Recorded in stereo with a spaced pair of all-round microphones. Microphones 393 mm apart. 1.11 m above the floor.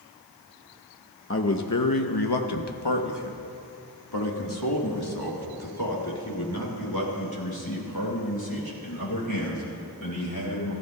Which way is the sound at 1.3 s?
30° left (ahead or behind).